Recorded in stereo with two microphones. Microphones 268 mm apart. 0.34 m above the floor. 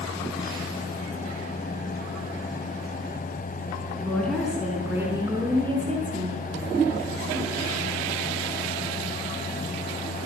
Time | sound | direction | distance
4.0 | a woman speaking | 5° left (ahead or behind) | 4.5 m